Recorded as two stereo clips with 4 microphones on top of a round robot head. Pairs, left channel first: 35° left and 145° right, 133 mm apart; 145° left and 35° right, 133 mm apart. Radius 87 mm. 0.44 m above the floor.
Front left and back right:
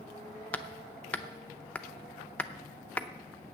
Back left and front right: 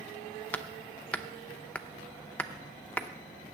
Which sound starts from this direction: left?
Hammering, at 0.5 s.